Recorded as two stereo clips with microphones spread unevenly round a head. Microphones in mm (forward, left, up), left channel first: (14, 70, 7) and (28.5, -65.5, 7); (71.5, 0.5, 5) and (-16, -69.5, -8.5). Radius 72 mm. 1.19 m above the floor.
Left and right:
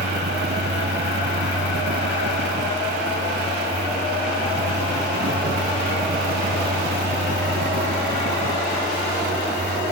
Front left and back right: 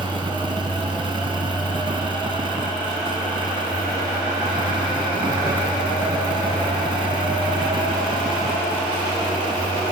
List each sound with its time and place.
0.0 s a fan: 95° right